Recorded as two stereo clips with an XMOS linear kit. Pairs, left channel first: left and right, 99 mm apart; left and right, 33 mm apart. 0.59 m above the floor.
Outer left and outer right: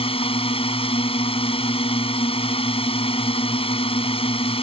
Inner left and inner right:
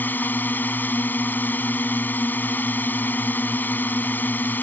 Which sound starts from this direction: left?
A drone, at 0.0 s.